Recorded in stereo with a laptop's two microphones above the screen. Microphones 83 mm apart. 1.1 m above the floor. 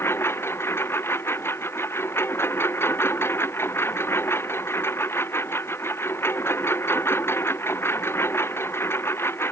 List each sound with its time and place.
0.0 s a lawn mower: 30° left (ahead or behind)